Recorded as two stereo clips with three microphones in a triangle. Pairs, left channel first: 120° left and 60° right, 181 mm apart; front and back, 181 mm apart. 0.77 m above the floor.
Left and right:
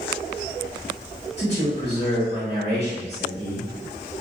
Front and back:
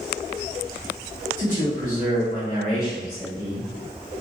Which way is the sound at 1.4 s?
135° left.